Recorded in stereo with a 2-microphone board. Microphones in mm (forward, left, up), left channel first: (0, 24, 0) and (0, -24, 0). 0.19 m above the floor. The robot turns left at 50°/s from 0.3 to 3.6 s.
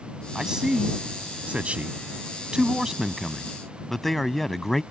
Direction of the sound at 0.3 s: 10° right (ahead or behind).